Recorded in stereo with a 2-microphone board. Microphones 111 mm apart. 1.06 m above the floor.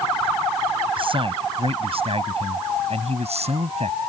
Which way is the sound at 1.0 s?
50° right (ahead or behind).